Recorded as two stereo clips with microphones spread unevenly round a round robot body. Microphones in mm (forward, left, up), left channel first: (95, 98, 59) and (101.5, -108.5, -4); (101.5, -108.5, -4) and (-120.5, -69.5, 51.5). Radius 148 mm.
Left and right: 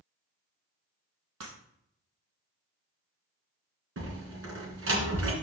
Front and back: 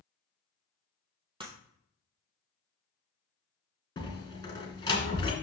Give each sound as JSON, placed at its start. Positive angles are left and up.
{"t": 1.4, "sound": "breaking glass", "azimuth_deg": -120, "distance_m": 2.0}
{"t": 4.0, "sound": "a door slam", "azimuth_deg": -80, "distance_m": 2.5}